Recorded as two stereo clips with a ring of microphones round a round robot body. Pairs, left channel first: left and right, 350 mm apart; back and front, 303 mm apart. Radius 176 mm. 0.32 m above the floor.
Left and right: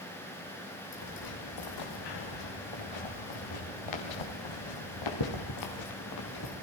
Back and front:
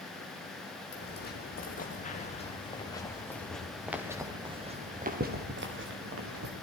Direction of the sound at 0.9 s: 125° left.